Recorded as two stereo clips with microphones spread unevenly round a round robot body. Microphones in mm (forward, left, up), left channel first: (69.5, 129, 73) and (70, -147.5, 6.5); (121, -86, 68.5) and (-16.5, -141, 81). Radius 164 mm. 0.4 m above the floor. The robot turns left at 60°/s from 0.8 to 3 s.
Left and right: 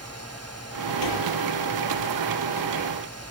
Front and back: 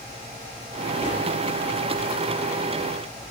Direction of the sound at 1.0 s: 95° left.